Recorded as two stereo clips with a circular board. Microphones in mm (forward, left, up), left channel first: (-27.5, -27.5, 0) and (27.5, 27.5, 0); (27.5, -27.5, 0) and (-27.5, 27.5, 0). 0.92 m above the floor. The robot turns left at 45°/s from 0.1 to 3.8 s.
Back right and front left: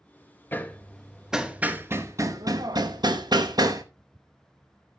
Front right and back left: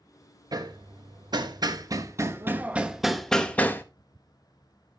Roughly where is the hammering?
Behind.